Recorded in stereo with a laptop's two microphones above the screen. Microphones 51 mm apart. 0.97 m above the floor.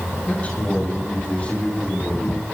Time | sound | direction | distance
0.3 | a man speaking | 30° left (ahead or behind) | 6 m